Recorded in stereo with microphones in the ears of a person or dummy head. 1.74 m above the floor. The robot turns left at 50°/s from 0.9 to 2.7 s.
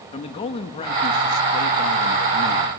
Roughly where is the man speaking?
Behind left.